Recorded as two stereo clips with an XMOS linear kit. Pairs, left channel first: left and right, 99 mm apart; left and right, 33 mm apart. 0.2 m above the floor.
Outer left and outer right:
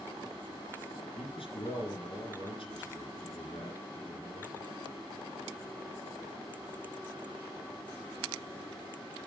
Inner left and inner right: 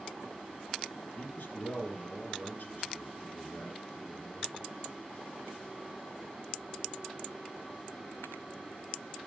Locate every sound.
1.2 s a man speaking: 65° left (ahead or behind), 2.5 m